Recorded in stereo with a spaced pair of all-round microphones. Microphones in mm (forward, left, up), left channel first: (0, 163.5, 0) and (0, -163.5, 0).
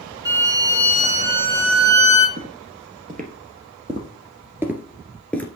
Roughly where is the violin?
Centre.